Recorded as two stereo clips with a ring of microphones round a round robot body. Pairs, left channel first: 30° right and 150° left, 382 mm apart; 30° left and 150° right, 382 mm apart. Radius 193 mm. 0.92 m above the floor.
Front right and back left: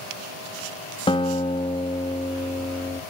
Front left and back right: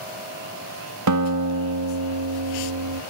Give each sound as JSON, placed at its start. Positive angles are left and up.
{"t": 1.1, "sound": "a guitar", "azimuth_deg": -105, "distance_m": 1.8}